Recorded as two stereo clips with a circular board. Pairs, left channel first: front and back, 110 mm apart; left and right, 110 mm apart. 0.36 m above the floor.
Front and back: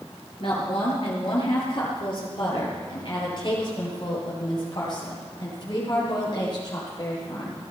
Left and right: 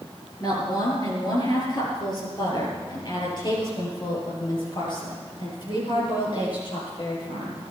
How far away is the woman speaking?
About 6.5 m.